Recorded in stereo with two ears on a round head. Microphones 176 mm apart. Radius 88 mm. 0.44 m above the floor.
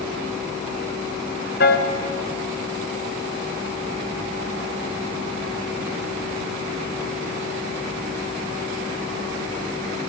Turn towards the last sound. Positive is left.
turn(degrees=55)  # may be behind; listen again after turning